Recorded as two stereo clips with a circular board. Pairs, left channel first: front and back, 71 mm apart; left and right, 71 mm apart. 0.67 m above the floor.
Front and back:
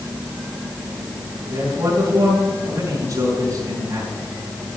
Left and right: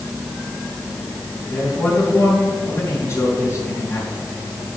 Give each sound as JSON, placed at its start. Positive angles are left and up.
{"t": 1.5, "sound": "a man speaking", "azimuth_deg": 135, "distance_m": 4.0}